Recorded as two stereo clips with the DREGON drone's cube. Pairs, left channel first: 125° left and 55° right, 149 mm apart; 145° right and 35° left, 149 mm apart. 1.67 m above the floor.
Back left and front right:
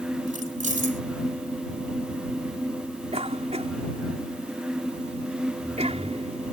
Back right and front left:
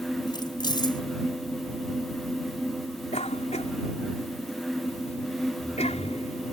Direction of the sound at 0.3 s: 85° right.